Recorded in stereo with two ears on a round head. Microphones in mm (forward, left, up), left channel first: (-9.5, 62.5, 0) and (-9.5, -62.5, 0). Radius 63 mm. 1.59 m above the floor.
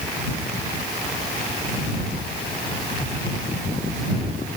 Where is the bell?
No bell in this recording.